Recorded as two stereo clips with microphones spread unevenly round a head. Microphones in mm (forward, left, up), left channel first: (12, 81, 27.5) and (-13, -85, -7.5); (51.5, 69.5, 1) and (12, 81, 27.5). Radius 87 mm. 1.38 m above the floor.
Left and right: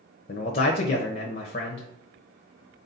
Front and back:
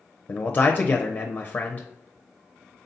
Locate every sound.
0.3 s a man speaking: 40° left, 0.7 m